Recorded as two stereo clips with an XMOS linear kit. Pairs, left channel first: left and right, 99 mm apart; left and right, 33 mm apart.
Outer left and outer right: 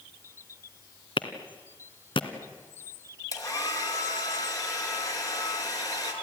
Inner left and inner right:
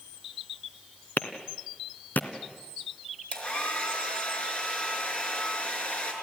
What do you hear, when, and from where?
1.2 s a clap: 65° left (ahead or behind), 2 m
3.3 s a hair dryer: 40° left (ahead or behind), 4.5 m